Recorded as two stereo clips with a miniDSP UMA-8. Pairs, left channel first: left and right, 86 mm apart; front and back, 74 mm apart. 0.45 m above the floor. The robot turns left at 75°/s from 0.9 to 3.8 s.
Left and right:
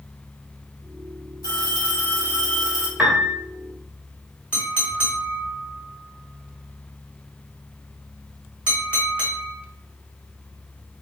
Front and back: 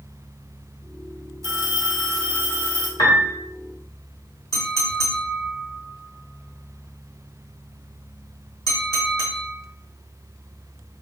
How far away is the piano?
About 0.9 m.